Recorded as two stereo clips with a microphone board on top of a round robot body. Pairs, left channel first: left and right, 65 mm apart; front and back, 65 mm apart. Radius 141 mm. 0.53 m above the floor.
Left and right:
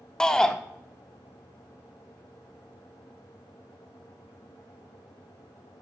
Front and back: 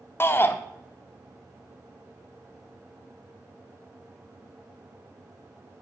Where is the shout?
20° left, 0.7 m.